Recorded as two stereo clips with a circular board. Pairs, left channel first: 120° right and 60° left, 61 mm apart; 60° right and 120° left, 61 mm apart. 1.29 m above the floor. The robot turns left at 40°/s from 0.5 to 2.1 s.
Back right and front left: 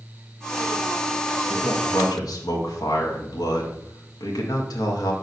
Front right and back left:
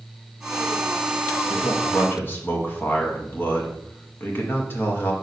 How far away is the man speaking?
About 1.6 m.